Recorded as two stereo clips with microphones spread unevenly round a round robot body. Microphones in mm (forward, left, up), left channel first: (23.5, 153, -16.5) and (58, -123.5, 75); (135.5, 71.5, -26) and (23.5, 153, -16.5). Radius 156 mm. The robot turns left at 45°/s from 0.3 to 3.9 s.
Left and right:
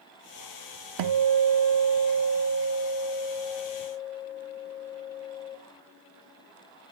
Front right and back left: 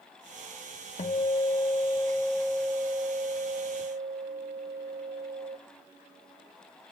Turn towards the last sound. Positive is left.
turn(degrees=165)